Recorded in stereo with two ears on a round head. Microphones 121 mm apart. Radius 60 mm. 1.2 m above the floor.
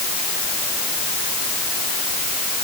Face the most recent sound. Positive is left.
No sound to turn to.